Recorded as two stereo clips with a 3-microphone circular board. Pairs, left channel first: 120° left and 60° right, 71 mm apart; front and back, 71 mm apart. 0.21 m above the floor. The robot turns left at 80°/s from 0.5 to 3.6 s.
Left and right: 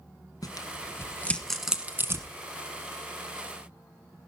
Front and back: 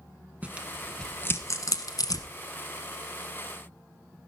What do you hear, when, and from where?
0.4 s tearing paper: 115° left, 1.3 m; by 2.3 s 25° right, 1.3 m